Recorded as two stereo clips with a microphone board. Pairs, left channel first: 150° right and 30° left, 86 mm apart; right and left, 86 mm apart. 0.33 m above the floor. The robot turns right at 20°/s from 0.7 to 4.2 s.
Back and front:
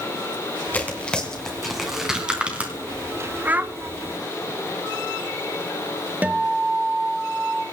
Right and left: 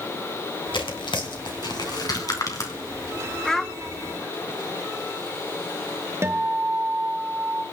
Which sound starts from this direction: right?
Tearing paper, at 0.7 s.